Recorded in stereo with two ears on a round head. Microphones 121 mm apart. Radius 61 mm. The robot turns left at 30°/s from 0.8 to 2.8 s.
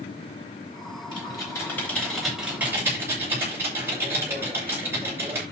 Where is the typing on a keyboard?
35° left, 8.5 m; by 5.4 s 20° right, 8.5 m.